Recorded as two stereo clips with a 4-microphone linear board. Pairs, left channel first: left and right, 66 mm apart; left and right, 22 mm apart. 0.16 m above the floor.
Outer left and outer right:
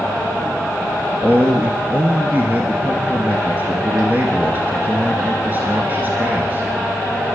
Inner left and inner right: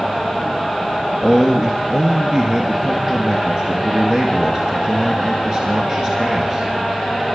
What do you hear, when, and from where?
1.2 s a man speaking: 30° right (ahead or behind), 2.5 m